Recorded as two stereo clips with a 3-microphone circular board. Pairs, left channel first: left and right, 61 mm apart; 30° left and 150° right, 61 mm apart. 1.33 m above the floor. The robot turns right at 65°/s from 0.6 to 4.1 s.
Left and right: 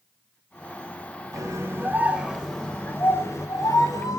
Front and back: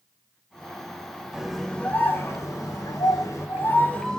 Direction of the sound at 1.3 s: 70° right.